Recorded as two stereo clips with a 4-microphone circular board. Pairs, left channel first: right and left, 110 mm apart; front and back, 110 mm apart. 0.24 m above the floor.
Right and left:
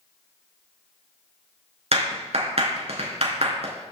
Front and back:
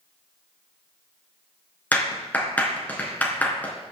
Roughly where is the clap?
Left.